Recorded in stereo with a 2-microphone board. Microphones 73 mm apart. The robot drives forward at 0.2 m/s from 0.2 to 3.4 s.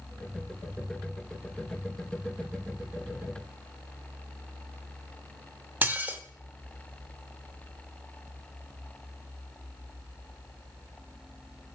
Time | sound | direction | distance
5.8 | dishes clattering | 25° right (ahead or behind) | 0.5 m